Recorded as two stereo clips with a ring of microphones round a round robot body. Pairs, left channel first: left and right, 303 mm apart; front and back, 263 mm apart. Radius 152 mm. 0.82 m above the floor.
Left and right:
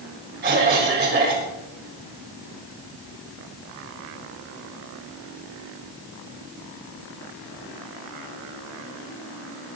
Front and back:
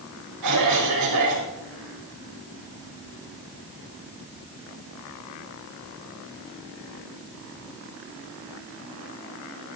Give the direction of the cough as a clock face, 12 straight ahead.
5 o'clock.